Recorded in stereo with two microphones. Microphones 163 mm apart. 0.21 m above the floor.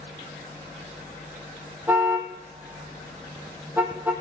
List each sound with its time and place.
1.9 s a car horn: 10° right (ahead or behind), 3 m